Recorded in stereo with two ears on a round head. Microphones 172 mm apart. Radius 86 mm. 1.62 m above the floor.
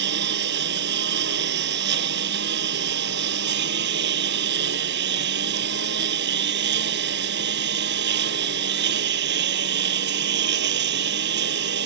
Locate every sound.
0.0 s a lawn mower: 60° right (ahead or behind)